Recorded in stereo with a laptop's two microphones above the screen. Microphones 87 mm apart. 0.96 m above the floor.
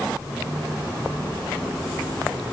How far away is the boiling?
I don't hear boiling.